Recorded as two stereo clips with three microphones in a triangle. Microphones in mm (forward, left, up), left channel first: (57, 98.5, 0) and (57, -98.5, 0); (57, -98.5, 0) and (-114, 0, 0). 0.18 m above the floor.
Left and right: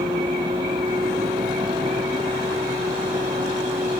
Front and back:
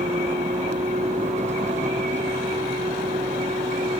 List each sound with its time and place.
0.0 s a vehicle: 155° right